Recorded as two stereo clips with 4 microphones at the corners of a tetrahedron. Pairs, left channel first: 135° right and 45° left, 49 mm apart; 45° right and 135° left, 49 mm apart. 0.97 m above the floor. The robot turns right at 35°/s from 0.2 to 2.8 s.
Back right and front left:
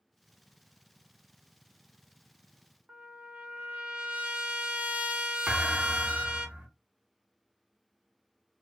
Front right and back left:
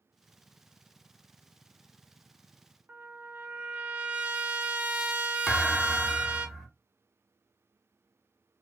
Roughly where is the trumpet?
Left.